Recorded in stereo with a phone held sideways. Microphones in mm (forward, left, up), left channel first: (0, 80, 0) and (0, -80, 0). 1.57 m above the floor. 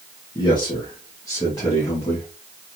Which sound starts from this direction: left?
A man speaking, at 0.3 s.